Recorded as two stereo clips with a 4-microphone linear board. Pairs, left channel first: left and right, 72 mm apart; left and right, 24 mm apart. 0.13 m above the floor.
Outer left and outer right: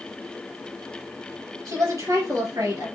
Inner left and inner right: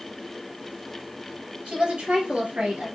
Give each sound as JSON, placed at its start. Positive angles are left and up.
{"t": 1.6, "sound": "a woman speaking", "side_deg": -50, "distance_m": 3.5}